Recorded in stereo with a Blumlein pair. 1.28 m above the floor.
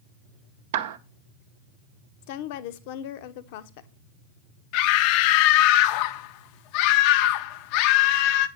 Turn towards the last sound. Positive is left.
turn(degrees=45)